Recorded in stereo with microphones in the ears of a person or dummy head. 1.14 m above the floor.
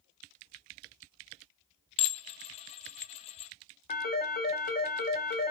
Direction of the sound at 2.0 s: 30° left (ahead or behind).